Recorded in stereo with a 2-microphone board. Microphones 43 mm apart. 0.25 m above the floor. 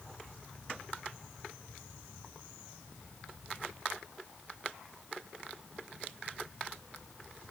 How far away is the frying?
No frying in this recording.